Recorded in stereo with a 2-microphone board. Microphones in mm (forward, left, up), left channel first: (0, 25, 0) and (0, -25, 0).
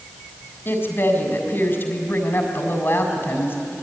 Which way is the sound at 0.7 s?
50° left (ahead or behind).